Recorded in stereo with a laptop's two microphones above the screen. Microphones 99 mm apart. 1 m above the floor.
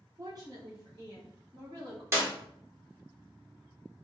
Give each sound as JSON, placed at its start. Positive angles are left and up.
{"t": 0.2, "sound": "a woman speaking", "side_deg": -35, "distance_m": 0.8}
{"t": 2.1, "sound": "a clap", "side_deg": -25, "distance_m": 1.3}